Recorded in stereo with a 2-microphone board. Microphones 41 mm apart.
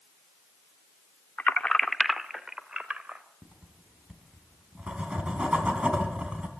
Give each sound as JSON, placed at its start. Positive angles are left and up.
{"t": 1.4, "sound": "keys jangling", "side_deg": 40, "distance_m": 0.6}
{"t": 3.4, "sound": "writing", "side_deg": -30, "distance_m": 3.5}